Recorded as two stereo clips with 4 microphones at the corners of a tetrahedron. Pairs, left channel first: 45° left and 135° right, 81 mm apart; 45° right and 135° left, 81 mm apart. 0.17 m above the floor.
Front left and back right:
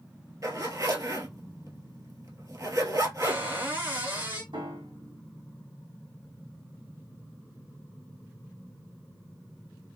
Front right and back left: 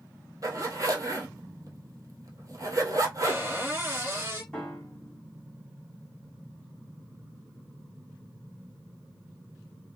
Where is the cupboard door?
175° left, 1.8 m.